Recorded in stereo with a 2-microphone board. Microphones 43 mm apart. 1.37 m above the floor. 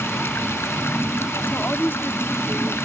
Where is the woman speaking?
50° left (ahead or behind).